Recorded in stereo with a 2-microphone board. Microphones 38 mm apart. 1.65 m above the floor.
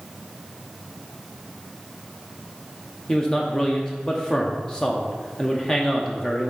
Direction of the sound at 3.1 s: 20° left (ahead or behind).